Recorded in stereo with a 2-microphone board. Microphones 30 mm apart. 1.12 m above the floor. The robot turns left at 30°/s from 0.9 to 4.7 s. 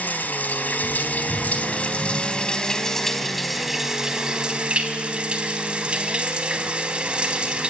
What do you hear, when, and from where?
0.0 s running water: 75° left, 3.5 m; by 7.7 s 40° right, 3.5 m